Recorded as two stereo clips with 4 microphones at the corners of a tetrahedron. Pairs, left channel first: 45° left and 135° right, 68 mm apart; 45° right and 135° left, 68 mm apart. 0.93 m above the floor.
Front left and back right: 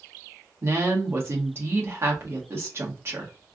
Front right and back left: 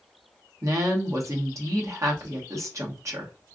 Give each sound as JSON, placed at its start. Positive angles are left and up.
{"t": 0.6, "sound": "a woman speaking", "azimuth_deg": 175, "distance_m": 1.2}